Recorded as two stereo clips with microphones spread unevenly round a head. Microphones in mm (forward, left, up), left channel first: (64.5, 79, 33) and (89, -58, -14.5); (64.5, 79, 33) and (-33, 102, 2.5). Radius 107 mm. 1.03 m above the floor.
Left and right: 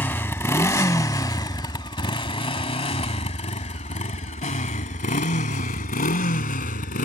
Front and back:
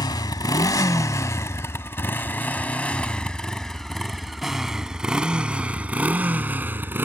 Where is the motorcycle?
30° left; by 7.1 s 95° left.